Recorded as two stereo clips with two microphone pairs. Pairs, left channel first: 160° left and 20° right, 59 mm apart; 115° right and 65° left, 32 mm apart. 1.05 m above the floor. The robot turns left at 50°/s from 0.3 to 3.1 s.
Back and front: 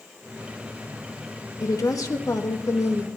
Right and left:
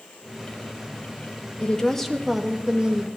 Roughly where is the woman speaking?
Behind.